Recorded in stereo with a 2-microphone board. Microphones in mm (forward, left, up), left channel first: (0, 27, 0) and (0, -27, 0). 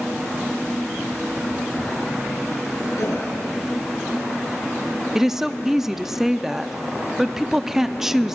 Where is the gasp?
85° left, 7 m.